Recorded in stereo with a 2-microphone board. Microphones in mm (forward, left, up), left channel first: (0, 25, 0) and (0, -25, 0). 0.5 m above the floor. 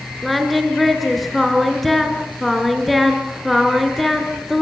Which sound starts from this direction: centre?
Singing, at 0.2 s.